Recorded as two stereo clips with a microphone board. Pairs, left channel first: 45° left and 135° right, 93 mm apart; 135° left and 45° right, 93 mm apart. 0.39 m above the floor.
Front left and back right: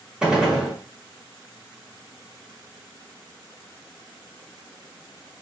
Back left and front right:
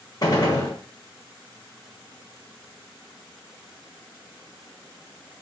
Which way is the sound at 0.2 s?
145° left.